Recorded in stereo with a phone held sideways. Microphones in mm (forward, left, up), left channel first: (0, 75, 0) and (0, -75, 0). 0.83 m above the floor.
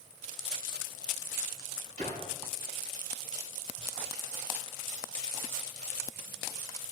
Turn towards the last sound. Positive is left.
turn(degrees=-50)  # may be behind; listen again after turning